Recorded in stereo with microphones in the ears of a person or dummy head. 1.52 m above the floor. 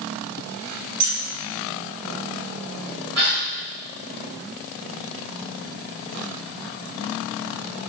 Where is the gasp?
45° right (ahead or behind), 2 m.